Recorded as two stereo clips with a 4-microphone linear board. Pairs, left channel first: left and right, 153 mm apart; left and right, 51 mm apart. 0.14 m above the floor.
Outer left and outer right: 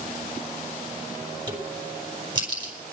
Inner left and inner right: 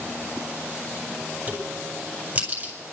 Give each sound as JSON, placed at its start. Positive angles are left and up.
{"t": 1.5, "sound": "a crack", "side_deg": -30, "distance_m": 4.0}